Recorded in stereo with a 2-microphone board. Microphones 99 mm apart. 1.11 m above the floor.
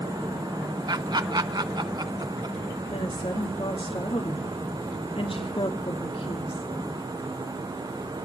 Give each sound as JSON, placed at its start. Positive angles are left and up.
{"t": 0.9, "sound": "laughter", "side_deg": -50, "distance_m": 1.5}
{"t": 2.9, "sound": "a woman speaking", "side_deg": 75, "distance_m": 2.5}